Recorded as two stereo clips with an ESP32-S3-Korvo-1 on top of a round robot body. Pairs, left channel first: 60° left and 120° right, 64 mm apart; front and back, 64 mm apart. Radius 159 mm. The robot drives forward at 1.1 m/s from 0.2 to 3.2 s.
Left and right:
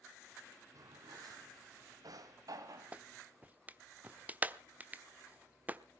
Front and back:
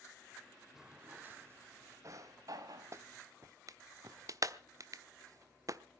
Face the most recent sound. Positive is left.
turn(degrees=180)